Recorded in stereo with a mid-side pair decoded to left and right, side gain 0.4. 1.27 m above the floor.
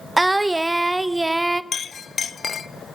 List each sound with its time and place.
0.2 s singing: 15° right, 0.8 m
1.7 s a clink: 50° left, 0.7 m